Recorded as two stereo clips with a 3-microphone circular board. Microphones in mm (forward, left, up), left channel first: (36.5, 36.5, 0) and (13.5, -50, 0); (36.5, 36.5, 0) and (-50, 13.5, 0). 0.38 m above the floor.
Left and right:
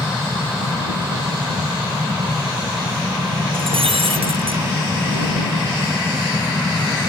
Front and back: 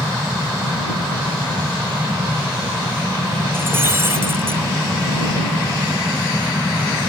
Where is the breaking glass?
100° right.